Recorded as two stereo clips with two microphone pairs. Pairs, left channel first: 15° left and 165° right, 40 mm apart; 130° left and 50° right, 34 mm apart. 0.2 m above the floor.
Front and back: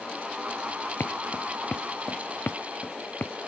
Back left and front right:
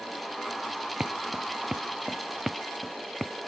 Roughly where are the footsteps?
Ahead.